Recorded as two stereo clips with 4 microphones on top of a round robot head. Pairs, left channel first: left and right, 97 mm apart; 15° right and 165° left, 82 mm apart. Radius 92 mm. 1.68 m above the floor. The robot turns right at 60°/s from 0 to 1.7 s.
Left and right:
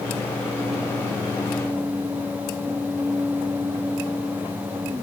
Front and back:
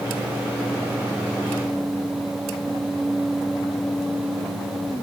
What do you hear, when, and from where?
Only background noise.